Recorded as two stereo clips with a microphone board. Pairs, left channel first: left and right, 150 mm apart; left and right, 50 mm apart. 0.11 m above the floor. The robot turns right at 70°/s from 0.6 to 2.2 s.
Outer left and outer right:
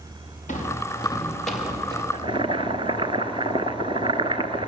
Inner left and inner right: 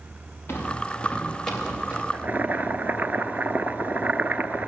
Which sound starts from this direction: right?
Boiling, at 2.1 s.